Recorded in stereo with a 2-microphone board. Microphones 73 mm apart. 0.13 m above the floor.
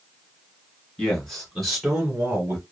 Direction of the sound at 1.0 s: 15° left (ahead or behind).